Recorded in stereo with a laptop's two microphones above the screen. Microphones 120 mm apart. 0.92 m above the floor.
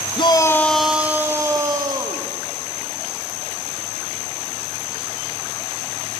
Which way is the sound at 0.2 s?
45° left (ahead or behind).